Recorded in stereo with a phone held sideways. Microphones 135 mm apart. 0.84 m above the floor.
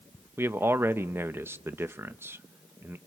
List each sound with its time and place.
0.4 s a man speaking: 15° right (ahead or behind), 0.8 m